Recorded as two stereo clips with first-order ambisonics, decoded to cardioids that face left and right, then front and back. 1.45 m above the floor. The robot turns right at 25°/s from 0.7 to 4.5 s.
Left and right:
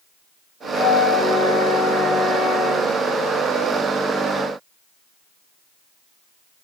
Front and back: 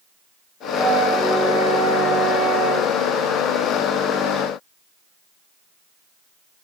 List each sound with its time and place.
0.7 s a flute: 100° left, 1.5 m; by 2.9 s 155° left, 1.5 m